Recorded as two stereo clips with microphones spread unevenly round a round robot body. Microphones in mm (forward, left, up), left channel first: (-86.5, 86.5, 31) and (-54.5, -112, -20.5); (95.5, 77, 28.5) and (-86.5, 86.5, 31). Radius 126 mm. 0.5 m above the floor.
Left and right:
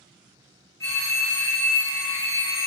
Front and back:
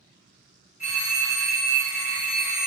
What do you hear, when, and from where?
0.8 s a phone ringing: 5° left, 0.8 m